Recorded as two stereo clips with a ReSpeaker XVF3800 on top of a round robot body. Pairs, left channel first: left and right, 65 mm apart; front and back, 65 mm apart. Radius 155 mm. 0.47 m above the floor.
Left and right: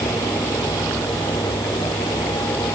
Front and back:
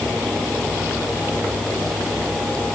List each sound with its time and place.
Only background noise.